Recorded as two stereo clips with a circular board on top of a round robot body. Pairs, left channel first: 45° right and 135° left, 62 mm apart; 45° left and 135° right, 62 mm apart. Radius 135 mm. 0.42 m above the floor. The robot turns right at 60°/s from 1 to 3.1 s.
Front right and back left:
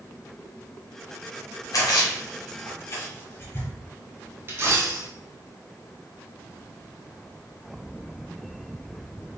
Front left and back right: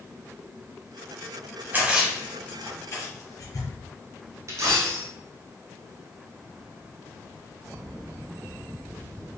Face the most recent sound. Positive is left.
turn(degrees=-175)